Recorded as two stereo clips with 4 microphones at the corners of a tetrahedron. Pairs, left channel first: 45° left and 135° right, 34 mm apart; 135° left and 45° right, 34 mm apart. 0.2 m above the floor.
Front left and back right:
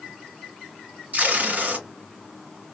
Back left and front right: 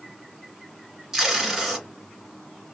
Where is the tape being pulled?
115° right, 1.7 m.